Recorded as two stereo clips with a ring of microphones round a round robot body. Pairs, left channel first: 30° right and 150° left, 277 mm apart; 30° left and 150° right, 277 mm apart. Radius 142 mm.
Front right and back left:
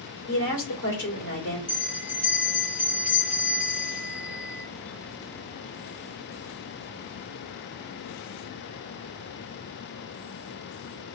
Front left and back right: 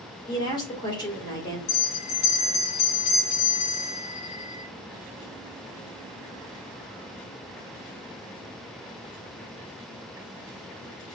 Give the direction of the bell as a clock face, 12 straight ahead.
10 o'clock.